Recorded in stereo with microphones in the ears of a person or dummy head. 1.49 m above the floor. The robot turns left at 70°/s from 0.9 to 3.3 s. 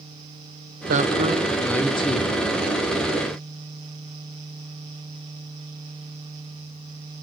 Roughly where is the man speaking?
Behind right.